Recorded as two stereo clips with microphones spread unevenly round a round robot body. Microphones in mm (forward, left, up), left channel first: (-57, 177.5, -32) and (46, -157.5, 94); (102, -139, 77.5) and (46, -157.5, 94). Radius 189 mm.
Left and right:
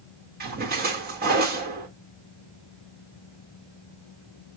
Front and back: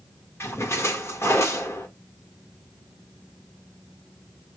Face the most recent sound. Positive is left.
turn(degrees=0)